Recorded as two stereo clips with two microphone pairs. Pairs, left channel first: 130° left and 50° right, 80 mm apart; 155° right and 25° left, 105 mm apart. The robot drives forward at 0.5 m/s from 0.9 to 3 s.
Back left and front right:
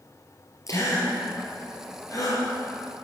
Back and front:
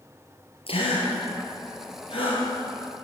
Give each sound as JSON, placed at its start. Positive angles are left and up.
{"t": 0.7, "sound": "a gasp", "azimuth_deg": 175, "distance_m": 5.0}